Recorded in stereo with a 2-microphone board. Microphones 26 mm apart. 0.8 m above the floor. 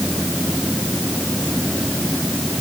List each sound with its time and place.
Only background noise.